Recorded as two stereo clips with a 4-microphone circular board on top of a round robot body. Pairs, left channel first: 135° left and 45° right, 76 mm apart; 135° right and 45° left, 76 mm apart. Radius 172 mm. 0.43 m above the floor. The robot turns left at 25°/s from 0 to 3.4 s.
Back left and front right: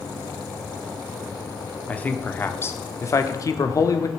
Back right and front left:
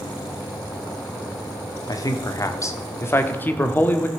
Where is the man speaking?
155° right, 1.5 m; by 4.1 s 165° left, 1.5 m.